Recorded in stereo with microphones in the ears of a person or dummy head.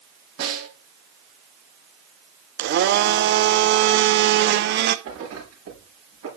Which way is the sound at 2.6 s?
55° right (ahead or behind).